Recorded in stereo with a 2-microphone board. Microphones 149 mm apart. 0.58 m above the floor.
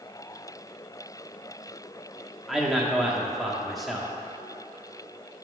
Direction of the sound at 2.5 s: Centre (ahead or behind).